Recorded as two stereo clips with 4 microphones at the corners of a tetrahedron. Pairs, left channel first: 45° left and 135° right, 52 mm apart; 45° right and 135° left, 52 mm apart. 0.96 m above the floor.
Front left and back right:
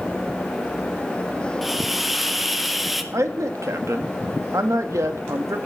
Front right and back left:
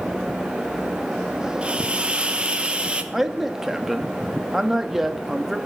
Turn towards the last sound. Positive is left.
turn(degrees=-140)